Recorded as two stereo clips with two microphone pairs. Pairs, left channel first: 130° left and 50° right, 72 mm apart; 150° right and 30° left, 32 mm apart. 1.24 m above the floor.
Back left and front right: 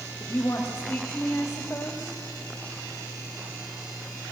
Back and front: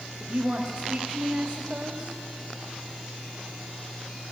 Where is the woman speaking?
75° left, 2.5 m.